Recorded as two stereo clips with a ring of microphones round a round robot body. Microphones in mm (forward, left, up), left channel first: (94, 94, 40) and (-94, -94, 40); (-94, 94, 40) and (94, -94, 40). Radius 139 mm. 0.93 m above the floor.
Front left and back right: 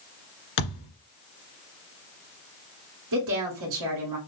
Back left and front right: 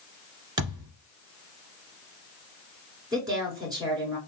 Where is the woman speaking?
120° right, 2.5 m.